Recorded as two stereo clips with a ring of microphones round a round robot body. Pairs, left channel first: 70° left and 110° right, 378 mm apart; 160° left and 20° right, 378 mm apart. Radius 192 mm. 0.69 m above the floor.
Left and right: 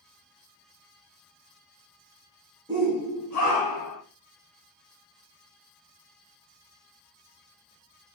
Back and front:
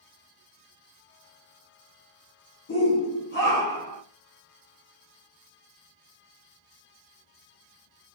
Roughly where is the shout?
Behind.